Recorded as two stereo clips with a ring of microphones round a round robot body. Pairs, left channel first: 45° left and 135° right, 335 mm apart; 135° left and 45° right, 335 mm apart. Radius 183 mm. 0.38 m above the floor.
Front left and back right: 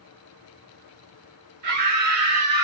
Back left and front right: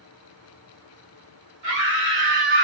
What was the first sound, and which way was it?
A scream, 100° right.